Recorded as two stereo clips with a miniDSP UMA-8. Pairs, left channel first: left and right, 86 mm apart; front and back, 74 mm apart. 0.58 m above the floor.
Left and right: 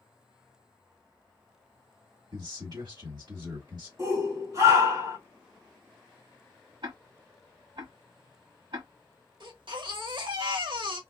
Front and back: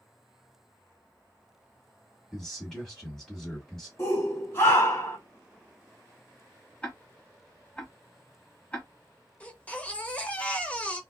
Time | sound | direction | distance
2.3 | a man speaking | 85° right | 1.8 m
4.0 | a shout | 50° right | 2 m
6.8 | ticking | 70° right | 1.2 m
9.4 | a baby crying | 70° right | 0.9 m